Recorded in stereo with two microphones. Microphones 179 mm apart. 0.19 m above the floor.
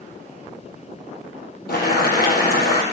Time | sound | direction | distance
1.7 | boiling | 60° left (ahead or behind) | 3 m